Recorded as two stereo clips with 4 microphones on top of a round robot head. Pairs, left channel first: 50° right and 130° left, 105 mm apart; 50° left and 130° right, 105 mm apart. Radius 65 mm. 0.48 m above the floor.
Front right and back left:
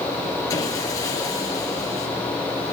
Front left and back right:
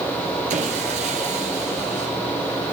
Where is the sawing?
110° right, 4 m.